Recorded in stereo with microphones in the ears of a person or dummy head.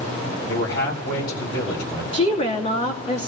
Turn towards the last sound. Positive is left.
turn(degrees=40)  # may be behind; listen again after turning